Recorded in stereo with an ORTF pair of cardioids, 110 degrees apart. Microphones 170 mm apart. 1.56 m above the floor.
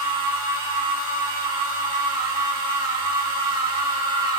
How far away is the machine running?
About 3.5 m.